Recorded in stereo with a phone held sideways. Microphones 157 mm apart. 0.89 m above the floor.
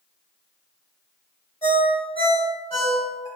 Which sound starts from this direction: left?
A ringtone, at 1.6 s.